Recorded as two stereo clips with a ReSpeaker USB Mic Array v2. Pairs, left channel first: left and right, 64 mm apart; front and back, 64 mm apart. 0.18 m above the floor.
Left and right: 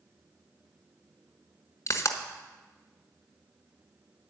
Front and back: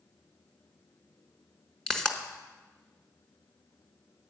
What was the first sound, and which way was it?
A pop, 80° left.